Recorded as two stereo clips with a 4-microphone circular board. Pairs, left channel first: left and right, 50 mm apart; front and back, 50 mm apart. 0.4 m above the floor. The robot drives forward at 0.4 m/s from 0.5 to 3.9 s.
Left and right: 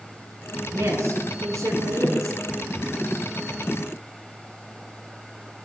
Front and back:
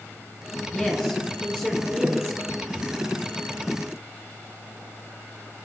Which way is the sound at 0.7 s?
70° right.